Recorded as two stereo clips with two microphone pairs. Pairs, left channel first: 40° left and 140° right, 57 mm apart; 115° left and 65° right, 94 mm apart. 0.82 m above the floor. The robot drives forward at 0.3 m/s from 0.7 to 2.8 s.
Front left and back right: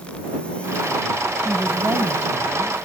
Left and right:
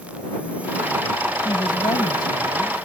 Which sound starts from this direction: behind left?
A woman speaking, at 1.4 s.